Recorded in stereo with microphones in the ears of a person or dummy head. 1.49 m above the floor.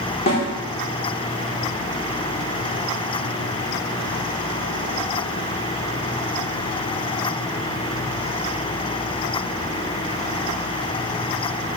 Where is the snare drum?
45° left (ahead or behind), 3.5 m.